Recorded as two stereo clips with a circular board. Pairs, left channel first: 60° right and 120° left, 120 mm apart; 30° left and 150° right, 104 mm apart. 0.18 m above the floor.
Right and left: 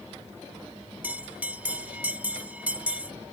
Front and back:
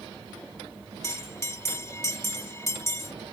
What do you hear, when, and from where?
1.0 s a bell: 55° left